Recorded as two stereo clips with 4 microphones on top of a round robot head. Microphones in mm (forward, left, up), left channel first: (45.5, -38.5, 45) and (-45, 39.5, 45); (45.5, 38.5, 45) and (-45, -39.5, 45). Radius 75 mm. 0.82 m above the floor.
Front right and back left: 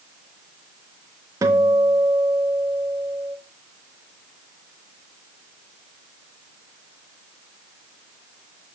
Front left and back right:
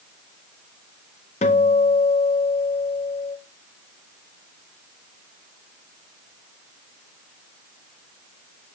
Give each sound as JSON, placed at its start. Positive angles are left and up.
{"t": 1.4, "sound": "a guitar", "azimuth_deg": 75, "distance_m": 0.9}